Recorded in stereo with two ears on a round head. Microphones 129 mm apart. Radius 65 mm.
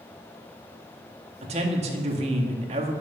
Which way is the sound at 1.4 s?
45° right (ahead or behind).